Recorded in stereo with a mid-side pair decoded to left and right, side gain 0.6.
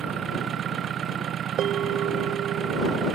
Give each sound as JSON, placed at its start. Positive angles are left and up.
{"t": 0.0, "sound": "an engine running", "azimuth_deg": -45}
{"t": 1.6, "sound": "a bell", "azimuth_deg": -55}